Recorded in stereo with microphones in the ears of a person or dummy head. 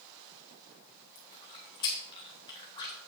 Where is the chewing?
20° left (ahead or behind), 1.5 m.